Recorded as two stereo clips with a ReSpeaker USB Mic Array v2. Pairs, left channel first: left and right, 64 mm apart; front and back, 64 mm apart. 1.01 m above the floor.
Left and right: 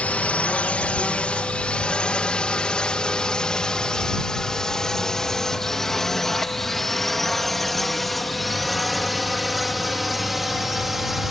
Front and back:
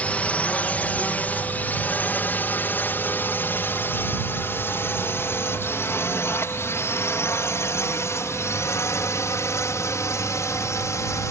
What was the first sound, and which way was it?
A drone, 45° left.